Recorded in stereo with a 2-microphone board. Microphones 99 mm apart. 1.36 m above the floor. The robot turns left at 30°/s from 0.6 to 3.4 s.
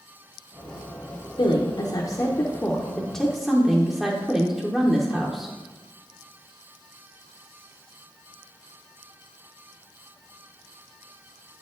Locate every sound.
1.4 s a woman speaking: 55° left, 0.7 m; by 5.5 s 5° right, 0.7 m